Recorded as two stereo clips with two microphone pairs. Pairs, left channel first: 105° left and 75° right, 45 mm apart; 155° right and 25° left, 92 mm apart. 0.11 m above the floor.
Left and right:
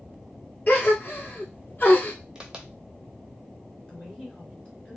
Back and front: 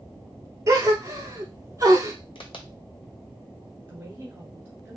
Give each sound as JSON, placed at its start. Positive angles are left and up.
{"t": 0.7, "sound": "a gasp", "azimuth_deg": 70, "distance_m": 0.9}
{"t": 2.4, "sound": "a crack", "azimuth_deg": -150, "distance_m": 0.7}
{"t": 3.9, "sound": "a woman speaking", "azimuth_deg": 65, "distance_m": 1.6}